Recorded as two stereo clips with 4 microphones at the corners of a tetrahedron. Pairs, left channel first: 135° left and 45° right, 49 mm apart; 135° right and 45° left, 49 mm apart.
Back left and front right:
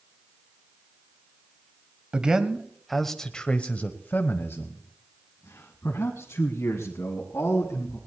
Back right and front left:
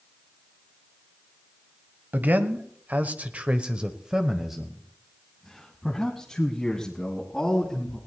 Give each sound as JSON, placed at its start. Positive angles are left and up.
{"t": 2.1, "sound": "a man speaking", "azimuth_deg": 15, "distance_m": 1.3}